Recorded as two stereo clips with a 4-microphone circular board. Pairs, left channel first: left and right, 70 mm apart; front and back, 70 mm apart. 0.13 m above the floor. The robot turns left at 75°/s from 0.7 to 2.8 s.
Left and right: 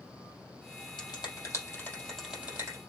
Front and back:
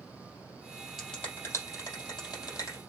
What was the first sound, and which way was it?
A finger snap, 90° left.